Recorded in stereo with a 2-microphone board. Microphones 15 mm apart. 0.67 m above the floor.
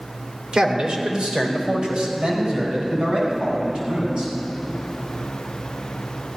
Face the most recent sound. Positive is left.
turn(degrees=-80)